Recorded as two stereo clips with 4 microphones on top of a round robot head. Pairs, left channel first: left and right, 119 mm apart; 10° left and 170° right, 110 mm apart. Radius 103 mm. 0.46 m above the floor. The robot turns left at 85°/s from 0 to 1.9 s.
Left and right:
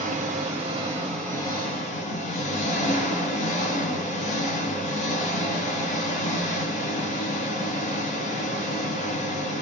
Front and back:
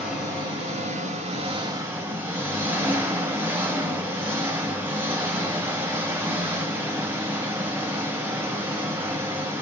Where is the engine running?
80° right, 1.3 m; by 9.6 s 120° left, 1.3 m.